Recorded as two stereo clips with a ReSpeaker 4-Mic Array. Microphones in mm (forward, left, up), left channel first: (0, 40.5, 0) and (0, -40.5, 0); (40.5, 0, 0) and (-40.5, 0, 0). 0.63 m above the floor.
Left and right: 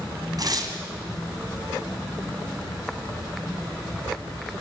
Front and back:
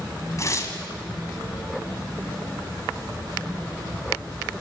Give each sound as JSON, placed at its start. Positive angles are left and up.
{"t": 0.4, "sound": "tearing paper", "azimuth_deg": -50, "distance_m": 2.5}